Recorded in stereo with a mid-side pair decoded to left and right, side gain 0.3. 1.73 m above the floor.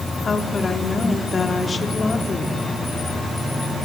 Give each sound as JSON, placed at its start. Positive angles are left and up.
{"t": 0.2, "sound": "a woman speaking", "azimuth_deg": 55, "distance_m": 4.0}